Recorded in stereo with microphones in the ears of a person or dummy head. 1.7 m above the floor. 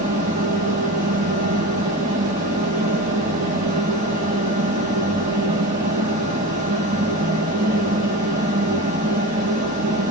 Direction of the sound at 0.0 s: 40° right (ahead or behind).